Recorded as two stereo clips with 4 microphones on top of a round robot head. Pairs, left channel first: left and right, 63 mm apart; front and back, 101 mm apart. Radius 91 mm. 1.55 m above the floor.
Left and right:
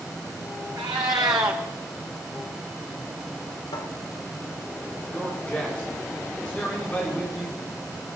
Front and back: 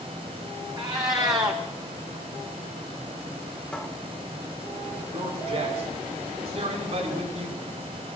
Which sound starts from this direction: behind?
A man speaking, at 5.1 s.